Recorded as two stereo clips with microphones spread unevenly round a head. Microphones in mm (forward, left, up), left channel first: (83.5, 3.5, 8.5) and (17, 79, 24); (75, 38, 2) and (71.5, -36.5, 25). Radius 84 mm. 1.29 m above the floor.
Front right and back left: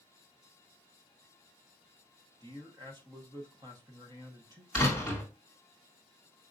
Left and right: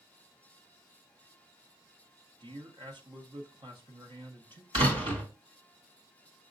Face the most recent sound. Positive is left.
turn(degrees=-140)